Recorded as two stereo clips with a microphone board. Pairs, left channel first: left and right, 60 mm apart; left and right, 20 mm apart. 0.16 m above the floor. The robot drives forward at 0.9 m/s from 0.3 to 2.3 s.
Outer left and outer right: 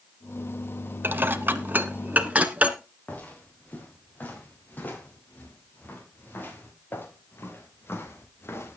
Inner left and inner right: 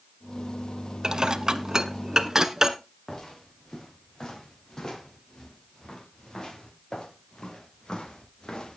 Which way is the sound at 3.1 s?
30° left (ahead or behind).